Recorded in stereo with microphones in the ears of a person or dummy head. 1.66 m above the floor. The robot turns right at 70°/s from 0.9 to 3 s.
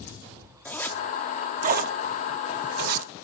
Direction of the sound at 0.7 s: 5° left (ahead or behind).